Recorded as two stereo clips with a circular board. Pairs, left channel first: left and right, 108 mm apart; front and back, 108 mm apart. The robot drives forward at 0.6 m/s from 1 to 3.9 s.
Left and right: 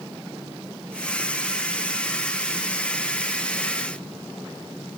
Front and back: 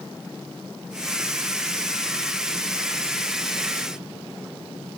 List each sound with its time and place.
Only background noise.